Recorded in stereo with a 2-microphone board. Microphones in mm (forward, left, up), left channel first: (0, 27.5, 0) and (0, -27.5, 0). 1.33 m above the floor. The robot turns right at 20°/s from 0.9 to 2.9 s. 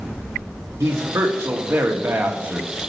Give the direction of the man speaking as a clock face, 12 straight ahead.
2 o'clock.